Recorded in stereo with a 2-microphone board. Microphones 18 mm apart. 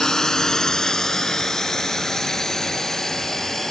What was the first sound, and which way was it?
A drone, 35° left (ahead or behind).